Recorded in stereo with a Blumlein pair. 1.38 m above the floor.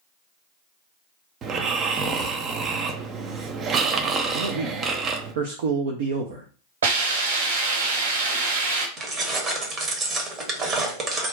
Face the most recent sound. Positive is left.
turn(degrees=-25)